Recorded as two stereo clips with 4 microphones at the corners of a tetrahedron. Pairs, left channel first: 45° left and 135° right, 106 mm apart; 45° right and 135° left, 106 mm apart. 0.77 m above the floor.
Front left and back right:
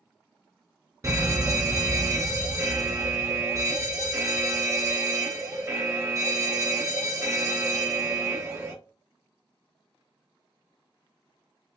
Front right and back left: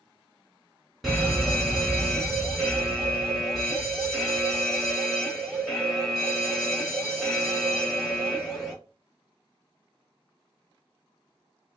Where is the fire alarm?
130° right, 2 m.